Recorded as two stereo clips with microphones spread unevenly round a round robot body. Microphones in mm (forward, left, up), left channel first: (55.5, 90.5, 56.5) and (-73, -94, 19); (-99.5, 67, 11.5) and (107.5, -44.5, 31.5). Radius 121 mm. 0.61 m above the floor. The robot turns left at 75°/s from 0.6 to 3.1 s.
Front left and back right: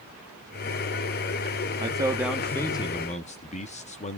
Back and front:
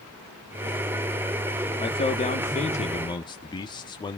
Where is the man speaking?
160° right, 1.3 m; by 4.2 s 105° left, 1.3 m.